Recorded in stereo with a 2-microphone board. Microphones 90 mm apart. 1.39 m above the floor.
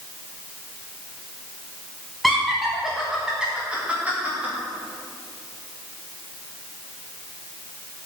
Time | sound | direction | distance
2.2 | laughter | centre (ahead or behind) | 1.1 m